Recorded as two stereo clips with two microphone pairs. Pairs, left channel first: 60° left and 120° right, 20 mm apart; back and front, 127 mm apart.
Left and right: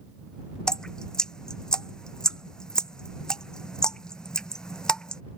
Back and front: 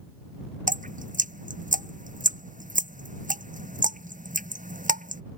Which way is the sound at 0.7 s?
5° left.